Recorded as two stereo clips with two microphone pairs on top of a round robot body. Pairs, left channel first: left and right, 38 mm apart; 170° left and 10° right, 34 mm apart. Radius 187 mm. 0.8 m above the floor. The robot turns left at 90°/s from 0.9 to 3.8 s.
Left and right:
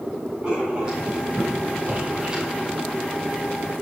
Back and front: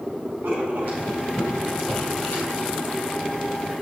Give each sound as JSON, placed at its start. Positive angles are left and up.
{"t": 0.4, "sound": "writing", "azimuth_deg": -25, "distance_m": 4.0}